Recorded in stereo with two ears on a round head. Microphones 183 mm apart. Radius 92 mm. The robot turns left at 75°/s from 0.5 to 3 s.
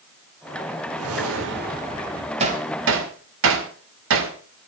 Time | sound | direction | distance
1.0 | a whoosh | 75° right | 1.3 m
2.4 | hammering | 30° right (ahead or behind) | 2 m